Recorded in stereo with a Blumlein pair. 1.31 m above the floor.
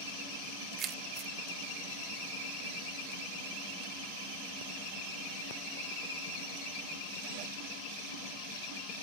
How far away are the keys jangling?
About 0.6 m.